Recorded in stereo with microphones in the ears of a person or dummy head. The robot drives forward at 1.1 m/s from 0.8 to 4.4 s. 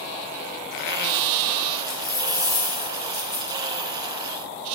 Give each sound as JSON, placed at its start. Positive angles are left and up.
{"t": 1.9, "sound": "a dropped coin", "side_deg": 20, "distance_m": 1.1}